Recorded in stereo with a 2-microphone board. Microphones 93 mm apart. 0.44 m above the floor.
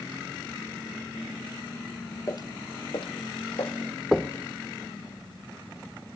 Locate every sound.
2.3 s footsteps: 35° left (ahead or behind), 0.5 m; by 3.8 s 80° left, 1.9 m
4.1 s knocking: centre (ahead or behind), 0.5 m